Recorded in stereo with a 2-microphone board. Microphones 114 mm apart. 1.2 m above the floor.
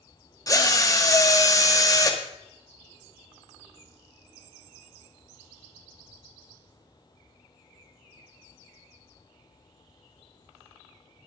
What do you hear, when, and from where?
0.5 s a drill: 30° left (ahead or behind), 1.8 m